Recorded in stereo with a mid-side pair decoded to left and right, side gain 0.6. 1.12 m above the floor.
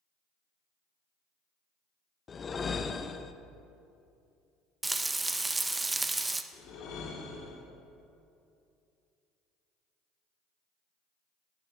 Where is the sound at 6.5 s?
65° left, 2.0 m.